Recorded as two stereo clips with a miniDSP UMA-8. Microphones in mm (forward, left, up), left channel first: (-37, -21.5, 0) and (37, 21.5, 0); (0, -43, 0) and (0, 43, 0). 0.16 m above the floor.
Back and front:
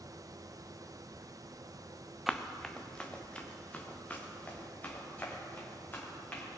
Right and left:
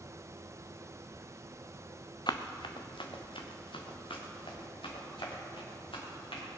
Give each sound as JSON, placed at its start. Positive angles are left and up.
{"t": 2.3, "sound": "running footsteps", "azimuth_deg": -55, "distance_m": 0.9}